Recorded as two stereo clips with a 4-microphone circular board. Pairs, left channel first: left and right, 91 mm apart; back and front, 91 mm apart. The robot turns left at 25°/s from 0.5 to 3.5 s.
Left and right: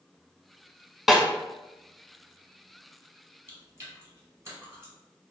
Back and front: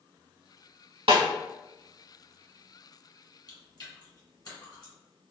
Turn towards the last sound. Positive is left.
turn(degrees=-150)